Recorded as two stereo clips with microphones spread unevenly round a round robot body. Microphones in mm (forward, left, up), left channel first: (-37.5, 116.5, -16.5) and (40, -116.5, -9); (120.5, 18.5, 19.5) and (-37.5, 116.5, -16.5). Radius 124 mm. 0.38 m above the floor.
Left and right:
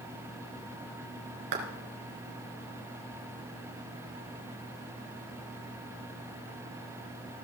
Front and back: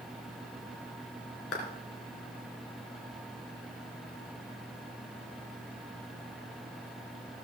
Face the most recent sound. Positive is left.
turn(degrees=-70)